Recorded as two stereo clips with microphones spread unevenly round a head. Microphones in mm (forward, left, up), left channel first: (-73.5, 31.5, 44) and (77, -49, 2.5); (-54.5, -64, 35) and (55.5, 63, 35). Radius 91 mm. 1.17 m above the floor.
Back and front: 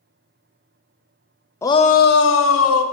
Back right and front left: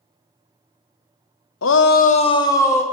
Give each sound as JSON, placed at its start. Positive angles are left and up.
{"t": 1.6, "sound": "a shout", "azimuth_deg": -135, "distance_m": 0.8}